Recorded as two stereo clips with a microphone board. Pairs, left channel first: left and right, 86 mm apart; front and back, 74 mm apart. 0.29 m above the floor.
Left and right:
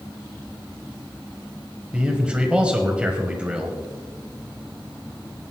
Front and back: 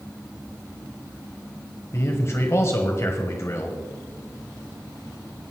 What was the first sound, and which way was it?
A man speaking, 20° right.